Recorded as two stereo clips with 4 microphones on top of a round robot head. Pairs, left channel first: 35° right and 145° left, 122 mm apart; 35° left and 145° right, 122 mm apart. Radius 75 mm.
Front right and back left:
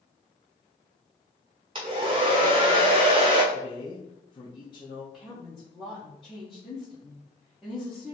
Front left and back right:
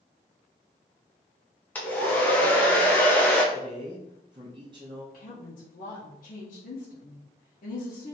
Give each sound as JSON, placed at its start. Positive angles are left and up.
{"t": 1.8, "sound": "a hair dryer", "azimuth_deg": 110, "distance_m": 0.6}
{"t": 3.5, "sound": "a man speaking", "azimuth_deg": -90, "distance_m": 0.7}
{"t": 5.1, "sound": "a woman speaking", "azimuth_deg": 50, "distance_m": 0.9}